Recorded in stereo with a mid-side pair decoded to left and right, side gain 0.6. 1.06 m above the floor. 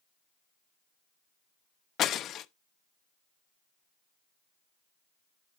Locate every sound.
2.0 s breaking glass: 50° left, 0.7 m